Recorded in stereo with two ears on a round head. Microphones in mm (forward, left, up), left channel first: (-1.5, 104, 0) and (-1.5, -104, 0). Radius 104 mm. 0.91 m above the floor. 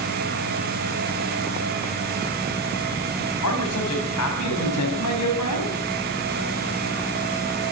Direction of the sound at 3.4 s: 70° left (ahead or behind).